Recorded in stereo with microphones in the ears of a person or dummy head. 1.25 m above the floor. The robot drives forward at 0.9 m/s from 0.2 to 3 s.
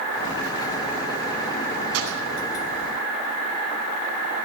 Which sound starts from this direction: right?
A gunshot, at 1.9 s.